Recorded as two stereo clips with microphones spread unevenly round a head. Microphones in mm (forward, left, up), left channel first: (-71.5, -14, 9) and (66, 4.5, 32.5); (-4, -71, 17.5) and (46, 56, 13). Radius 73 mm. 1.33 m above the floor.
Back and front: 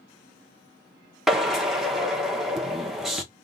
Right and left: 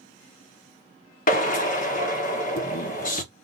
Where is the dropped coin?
No dropped coin in this recording.